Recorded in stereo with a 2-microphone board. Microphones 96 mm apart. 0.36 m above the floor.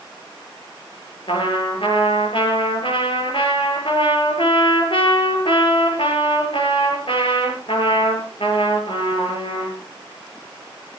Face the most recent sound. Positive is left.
turn(degrees=65)  # may be behind; listen again after turning